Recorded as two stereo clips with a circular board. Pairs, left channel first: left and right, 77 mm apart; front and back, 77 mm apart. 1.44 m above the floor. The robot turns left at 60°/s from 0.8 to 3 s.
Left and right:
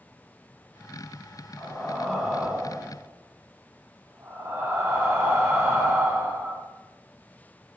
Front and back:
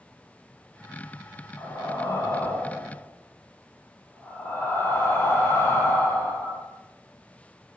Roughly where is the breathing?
Ahead left.